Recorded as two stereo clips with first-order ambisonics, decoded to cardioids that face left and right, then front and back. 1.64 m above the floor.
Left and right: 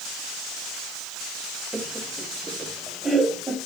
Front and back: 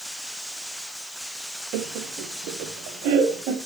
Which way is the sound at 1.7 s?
175° right.